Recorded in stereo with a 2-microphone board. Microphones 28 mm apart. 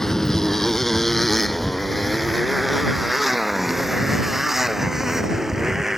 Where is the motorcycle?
20° left (ahead or behind); by 6.0 s 10° right (ahead or behind).